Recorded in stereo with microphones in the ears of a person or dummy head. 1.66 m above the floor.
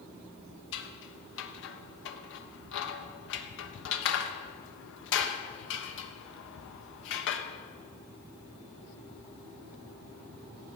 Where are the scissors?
75° left (ahead or behind), 1.3 m.